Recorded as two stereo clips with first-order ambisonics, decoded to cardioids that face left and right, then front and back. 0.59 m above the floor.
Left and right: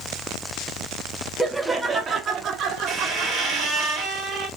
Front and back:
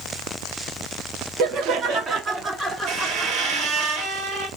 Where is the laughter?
Straight behind, 0.8 m; by 3.9 s 85° right, 1.2 m.